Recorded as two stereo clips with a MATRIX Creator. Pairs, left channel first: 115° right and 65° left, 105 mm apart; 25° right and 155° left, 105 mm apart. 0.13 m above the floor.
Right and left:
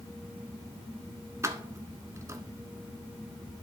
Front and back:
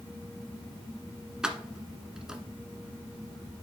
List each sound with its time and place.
1.4 s keys jangling: 80° left, 0.9 m